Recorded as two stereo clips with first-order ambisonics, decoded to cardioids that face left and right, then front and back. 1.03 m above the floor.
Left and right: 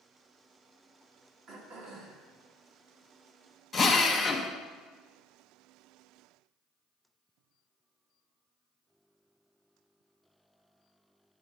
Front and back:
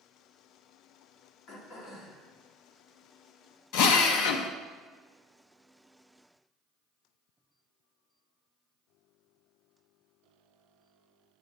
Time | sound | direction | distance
1.5 | throat clearing | 35° right | 1.6 m
3.7 | a drill | 15° left | 0.8 m